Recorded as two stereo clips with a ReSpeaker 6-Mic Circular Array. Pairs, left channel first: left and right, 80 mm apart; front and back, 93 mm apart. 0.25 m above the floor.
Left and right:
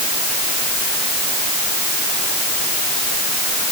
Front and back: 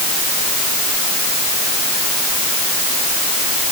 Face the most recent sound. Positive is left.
No sound to turn to.